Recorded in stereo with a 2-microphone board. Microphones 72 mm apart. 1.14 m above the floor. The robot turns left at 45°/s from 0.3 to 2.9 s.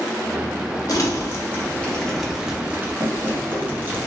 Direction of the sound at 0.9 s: 55° left (ahead or behind).